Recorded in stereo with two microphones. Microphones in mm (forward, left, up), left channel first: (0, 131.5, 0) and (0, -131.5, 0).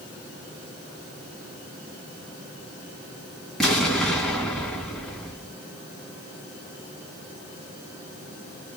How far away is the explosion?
About 2.5 m.